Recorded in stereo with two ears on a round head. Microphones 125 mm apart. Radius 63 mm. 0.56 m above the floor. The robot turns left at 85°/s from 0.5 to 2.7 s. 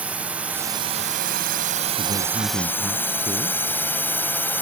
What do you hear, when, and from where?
0.0 s a drone: 10° right (ahead or behind); by 4.6 s 15° left (ahead or behind)
2.0 s a man speaking: 110° right; by 3.6 s 175° right